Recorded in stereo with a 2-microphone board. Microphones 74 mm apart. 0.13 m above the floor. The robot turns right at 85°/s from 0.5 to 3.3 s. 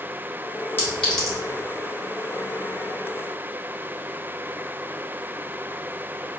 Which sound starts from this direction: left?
A clink, at 0.8 s.